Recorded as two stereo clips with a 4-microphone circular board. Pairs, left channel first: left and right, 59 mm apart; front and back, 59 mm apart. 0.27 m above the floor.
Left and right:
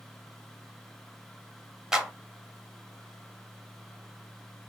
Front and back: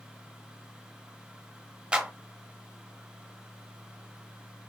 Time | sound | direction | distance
1.9 | a clap | 150° right | 0.8 m